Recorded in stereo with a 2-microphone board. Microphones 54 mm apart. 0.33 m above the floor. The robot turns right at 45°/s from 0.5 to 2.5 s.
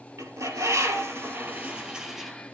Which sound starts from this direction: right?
A bird, at 0.2 s.